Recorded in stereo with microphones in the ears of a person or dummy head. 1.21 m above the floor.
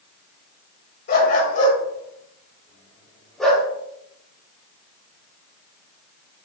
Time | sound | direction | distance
1.1 | a dog barking | 45° left (ahead or behind) | 2.5 m